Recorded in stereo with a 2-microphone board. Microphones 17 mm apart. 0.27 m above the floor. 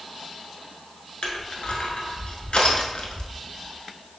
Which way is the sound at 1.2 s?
80° left.